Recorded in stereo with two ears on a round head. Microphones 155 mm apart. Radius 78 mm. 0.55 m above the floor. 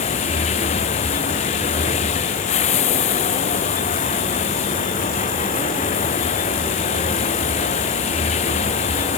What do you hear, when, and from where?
0.0 s running water: 35° left (ahead or behind)